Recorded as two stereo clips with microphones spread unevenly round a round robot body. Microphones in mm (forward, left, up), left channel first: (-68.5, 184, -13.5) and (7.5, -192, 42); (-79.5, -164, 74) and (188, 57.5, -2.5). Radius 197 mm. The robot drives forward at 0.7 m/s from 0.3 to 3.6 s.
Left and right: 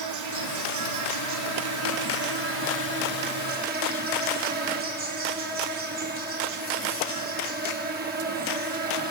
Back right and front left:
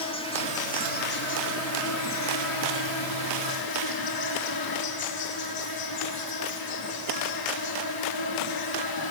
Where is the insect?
60° right, 2 m; by 9.1 s 145° right, 2.5 m.